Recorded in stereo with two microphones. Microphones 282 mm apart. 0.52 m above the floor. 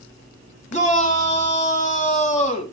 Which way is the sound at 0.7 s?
25° left (ahead or behind).